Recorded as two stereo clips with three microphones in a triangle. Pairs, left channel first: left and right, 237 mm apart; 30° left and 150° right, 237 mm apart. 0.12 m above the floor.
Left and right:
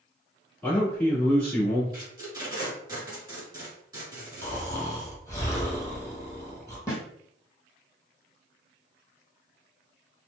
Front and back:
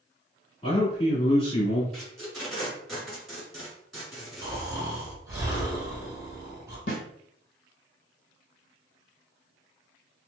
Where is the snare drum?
15° left, 1.2 m.